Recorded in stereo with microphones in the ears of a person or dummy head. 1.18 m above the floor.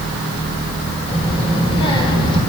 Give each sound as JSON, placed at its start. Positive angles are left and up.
{"t": 1.1, "sound": "a child speaking", "side_deg": 30, "distance_m": 4.0}